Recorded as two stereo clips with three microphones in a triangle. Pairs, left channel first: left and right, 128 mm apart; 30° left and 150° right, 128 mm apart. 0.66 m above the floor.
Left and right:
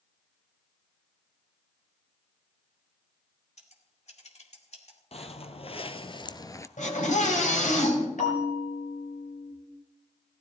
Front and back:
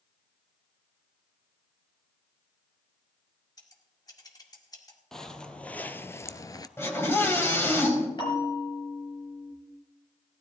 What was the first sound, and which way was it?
Scissors, 85° left.